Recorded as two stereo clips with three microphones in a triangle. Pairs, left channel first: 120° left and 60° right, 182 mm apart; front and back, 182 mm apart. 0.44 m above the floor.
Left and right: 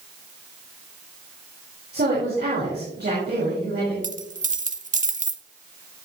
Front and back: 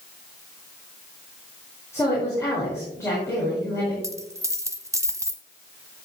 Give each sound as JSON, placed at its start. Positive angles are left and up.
{"t": 1.9, "sound": "a woman speaking", "azimuth_deg": -75, "distance_m": 5.0}
{"t": 4.0, "sound": "a dropped coin", "azimuth_deg": -110, "distance_m": 0.8}